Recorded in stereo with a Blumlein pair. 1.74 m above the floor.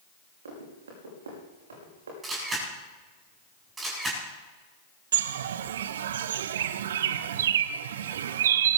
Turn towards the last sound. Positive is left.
turn(degrees=-60)